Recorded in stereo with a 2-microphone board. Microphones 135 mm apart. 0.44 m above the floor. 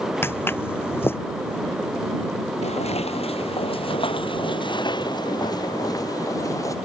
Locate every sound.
0.2 s footsteps: 15° left (ahead or behind)
2.6 s footsteps: 55° left (ahead or behind); by 6.8 s 25° left (ahead or behind)